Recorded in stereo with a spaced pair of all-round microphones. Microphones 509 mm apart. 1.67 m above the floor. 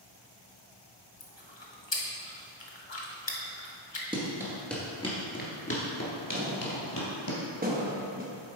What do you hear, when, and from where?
1.2 s chewing: 55° left (ahead or behind), 1.1 m
4.1 s running footsteps: 10° right (ahead or behind), 1.9 m; by 7.3 s 50° left (ahead or behind), 2.5 m
6.3 s a thud: 15° right (ahead or behind), 1.0 m